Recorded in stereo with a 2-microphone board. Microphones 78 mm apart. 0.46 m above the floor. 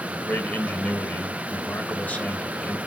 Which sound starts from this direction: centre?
A man speaking, at 0.1 s.